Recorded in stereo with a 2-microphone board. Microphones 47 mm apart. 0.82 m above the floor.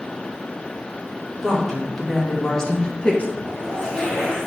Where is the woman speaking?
5° left (ahead or behind), 2.5 m; by 3.3 s 30° left (ahead or behind), 0.9 m.